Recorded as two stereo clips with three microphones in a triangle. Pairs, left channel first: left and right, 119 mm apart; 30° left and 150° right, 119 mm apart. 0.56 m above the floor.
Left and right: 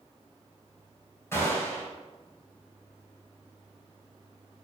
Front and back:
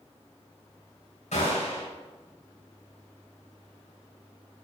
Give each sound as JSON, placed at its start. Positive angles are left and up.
{"t": 1.3, "sound": "a gunshot", "azimuth_deg": 25, "distance_m": 4.0}